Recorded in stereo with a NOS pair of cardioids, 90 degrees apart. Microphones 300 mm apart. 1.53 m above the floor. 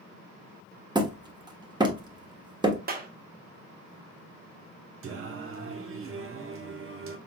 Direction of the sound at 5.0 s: 45° right.